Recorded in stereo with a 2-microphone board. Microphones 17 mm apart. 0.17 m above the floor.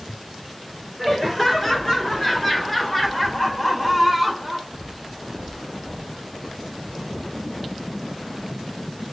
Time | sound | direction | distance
1.0 | laughter | 15° left (ahead or behind) | 3 m